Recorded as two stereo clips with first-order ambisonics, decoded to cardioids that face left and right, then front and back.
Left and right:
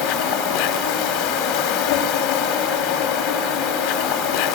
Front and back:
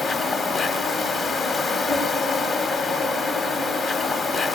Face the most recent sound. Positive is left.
turn(degrees=80)